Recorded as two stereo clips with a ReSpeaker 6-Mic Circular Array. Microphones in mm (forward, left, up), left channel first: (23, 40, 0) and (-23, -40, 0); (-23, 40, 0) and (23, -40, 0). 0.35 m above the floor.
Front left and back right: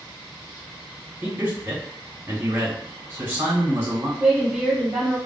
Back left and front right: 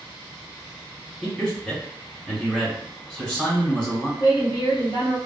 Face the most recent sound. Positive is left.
turn(degrees=160)